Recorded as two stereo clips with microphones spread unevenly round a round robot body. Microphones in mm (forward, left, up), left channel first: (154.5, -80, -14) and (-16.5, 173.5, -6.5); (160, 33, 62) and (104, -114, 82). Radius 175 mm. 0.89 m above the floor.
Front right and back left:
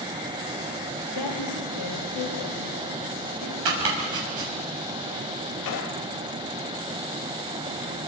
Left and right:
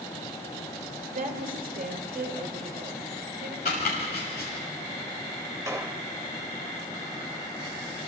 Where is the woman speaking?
80° right, 5 m; by 3.5 s 90° right, 6.5 m.